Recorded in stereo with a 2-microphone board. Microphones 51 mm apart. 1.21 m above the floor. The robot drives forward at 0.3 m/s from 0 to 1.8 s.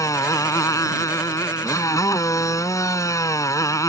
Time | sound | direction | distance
0.0 | a motorcycle | 80° left | ?